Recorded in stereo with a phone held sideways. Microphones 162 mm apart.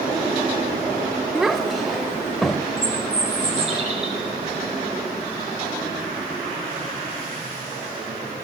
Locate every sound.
1.4 s a child speaking: 5° right (ahead or behind), 1.8 m; by 2.7 s centre (ahead or behind), 3.5 m
2.8 s a bird: 35° right (ahead or behind), 8.5 m